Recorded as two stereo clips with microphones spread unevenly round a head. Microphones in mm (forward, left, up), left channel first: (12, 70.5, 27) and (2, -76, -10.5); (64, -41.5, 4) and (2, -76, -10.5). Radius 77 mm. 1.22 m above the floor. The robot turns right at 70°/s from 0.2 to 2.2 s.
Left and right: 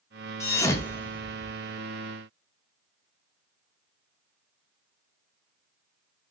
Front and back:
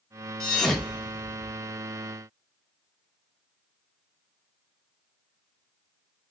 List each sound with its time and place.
0.4 s a thud: 75° left, 0.5 m; by 1.5 s 155° left, 0.5 m